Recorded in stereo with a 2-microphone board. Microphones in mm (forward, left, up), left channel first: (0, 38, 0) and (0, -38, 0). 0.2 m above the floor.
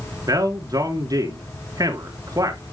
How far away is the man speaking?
About 2.5 m.